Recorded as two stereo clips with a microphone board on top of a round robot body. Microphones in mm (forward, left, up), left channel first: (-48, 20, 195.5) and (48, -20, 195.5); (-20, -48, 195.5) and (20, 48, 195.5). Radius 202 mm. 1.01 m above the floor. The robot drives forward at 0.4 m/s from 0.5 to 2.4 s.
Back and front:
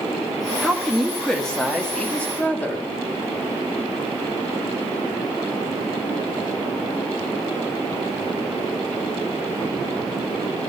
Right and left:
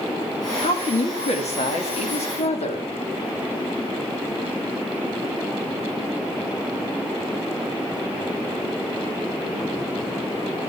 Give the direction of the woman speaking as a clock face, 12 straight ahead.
4 o'clock.